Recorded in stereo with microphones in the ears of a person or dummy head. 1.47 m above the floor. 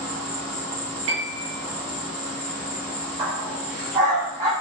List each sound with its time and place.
0.0 s an insect: centre (ahead or behind), 0.8 m
1.1 s a piano: 25° right (ahead or behind), 0.6 m
3.2 s a dog barking: 20° right (ahead or behind), 0.9 m